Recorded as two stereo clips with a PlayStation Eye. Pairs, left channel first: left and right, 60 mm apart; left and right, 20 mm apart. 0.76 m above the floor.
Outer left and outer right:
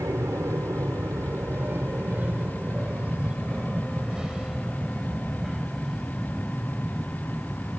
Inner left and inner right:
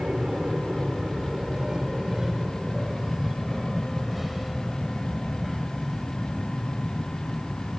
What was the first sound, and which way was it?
An aircraft, 55° right (ahead or behind).